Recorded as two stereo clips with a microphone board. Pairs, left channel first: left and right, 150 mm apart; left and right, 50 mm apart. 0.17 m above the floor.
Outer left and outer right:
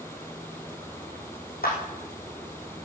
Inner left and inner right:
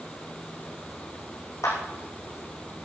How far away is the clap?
About 7 m.